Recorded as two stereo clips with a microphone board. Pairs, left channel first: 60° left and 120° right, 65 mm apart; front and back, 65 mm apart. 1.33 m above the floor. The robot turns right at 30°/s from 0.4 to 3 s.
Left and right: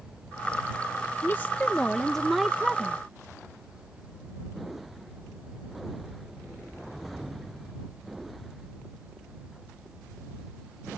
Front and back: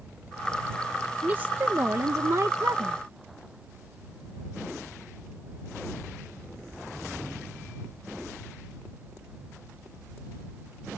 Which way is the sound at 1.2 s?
115° left.